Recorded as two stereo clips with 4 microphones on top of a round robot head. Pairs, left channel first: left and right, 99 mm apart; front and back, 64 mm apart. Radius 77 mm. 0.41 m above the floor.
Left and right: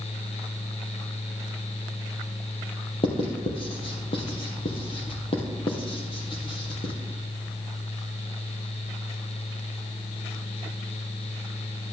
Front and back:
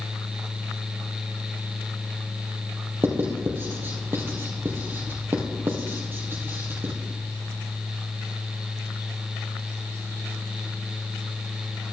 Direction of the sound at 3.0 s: 125° left.